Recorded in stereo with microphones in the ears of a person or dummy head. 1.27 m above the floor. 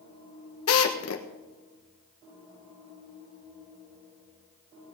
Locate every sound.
0.7 s a drill: 75° left (ahead or behind), 1.4 m